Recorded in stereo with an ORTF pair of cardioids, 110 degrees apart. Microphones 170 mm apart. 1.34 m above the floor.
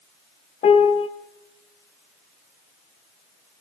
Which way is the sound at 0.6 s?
40° left.